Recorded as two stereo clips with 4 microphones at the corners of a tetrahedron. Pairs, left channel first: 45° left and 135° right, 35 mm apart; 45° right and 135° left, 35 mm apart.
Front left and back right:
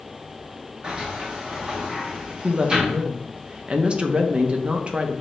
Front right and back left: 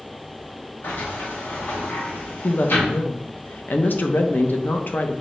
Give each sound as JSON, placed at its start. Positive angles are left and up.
{"t": 0.8, "sound": "a sliding door", "azimuth_deg": -65, "distance_m": 1.0}
{"t": 2.4, "sound": "a woman speaking", "azimuth_deg": -75, "distance_m": 0.5}